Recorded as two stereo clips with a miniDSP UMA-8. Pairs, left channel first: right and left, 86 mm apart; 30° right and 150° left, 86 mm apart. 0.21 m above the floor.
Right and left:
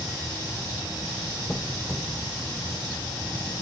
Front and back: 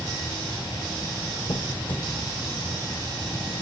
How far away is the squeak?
About 1.5 m.